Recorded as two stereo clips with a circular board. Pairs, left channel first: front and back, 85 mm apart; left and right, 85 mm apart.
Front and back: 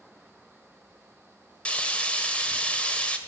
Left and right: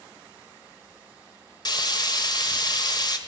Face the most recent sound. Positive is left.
turn(degrees=75)